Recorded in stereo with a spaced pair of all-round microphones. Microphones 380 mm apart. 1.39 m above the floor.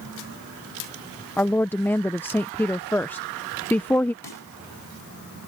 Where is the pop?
75° left (ahead or behind).